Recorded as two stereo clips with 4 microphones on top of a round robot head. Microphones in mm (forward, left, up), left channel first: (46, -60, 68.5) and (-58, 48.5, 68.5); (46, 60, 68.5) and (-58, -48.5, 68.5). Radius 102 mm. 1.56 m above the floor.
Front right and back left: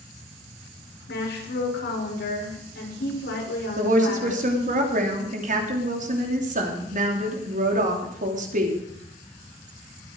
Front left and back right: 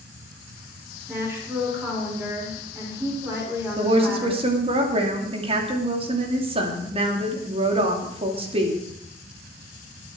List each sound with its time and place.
1.1 s a woman speaking: 60° right, 6.5 m
3.8 s a woman speaking: 170° left, 3 m